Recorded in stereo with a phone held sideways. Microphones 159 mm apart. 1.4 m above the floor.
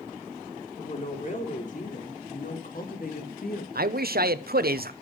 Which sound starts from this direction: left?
A woman speaking, at 0.8 s.